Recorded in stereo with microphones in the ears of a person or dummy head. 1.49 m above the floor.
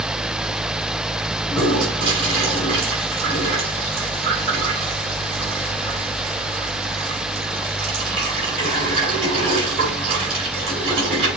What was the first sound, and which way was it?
A toilet flushing, 35° right (ahead or behind).